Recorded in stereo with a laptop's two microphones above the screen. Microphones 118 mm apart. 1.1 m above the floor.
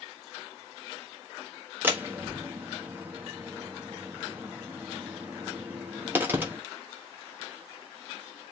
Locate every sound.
1.8 s a door slam: 15° right (ahead or behind), 1.4 m